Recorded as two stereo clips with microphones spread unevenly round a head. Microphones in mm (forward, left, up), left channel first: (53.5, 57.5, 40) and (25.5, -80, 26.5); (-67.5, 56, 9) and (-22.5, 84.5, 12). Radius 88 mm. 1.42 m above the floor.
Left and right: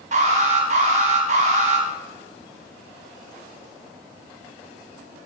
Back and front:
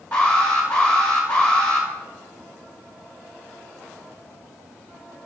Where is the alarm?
70° right, 4.5 m.